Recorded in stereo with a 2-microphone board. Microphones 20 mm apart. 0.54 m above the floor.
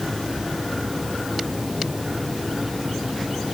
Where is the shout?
No shout in this recording.